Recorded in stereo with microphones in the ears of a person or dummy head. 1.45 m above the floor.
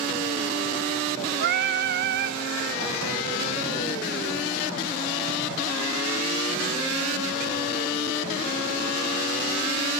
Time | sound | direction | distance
1.4 | singing | 65° right (ahead or behind) | 0.8 m